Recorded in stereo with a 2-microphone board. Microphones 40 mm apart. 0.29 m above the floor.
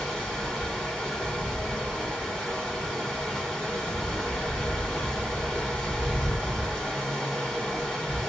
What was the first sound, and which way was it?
Running water, 10° left (ahead or behind).